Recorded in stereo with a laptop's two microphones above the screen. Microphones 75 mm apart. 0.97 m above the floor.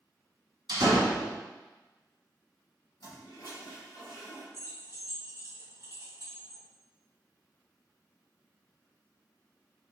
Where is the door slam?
80° right, 1.6 m.